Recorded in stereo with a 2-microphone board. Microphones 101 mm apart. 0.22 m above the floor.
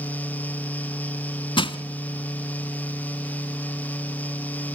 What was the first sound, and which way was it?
Crushing, 55° left (ahead or behind).